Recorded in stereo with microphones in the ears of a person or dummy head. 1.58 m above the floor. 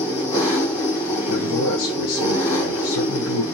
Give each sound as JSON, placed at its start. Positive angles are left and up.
{"t": 0.0, "sound": "an engine running", "side_deg": 15, "distance_m": 3.0}
{"t": 1.3, "sound": "a man speaking", "side_deg": 75, "distance_m": 1.0}